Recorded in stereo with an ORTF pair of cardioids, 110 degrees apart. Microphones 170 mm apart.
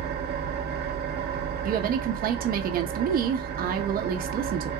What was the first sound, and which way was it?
An engine running, 65° right.